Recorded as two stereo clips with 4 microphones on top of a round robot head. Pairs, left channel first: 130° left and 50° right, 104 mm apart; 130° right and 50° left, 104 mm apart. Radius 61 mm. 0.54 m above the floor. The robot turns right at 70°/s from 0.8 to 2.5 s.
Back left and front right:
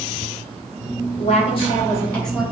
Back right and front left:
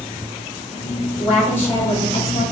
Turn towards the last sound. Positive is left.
turn(degrees=-135)